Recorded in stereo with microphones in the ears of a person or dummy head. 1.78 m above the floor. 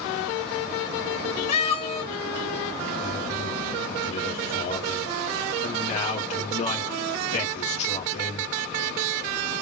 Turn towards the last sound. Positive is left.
turn(degrees=35)  # may be behind; listen again after turning